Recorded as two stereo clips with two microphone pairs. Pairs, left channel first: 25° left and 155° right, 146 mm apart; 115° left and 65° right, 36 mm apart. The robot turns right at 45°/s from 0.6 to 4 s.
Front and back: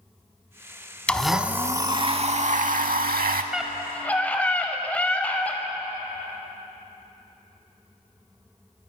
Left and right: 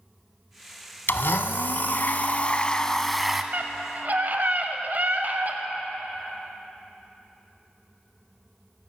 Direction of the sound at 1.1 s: 105° left.